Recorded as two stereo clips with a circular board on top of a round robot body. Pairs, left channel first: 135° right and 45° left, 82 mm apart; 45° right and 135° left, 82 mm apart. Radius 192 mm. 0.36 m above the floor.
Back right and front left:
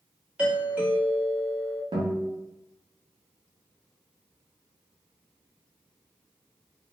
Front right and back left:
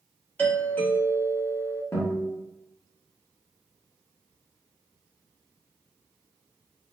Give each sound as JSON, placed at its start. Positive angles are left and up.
{"t": 0.4, "sound": "a doorbell", "azimuth_deg": -10, "distance_m": 1.6}
{"t": 1.9, "sound": "a guitar", "azimuth_deg": 15, "distance_m": 0.8}